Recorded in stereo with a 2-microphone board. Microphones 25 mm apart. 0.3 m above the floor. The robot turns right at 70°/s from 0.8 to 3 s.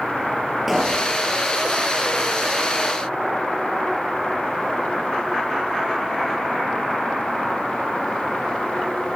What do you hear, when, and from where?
0.7 s a pop: 5° right (ahead or behind), 5 m; by 1.1 s 15° left (ahead or behind), 5 m